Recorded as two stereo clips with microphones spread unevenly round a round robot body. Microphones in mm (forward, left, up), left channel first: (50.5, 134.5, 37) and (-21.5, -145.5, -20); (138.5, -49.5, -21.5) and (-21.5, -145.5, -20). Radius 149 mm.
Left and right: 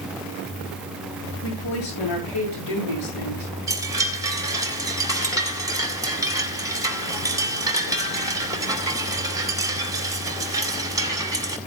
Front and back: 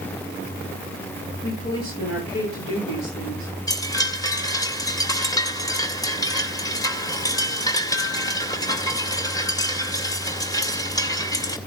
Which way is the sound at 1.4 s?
75° left.